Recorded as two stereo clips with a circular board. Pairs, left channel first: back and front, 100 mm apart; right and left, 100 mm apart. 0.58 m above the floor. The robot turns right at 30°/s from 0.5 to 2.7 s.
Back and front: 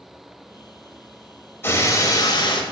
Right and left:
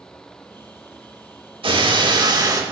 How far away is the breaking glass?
About 0.7 m.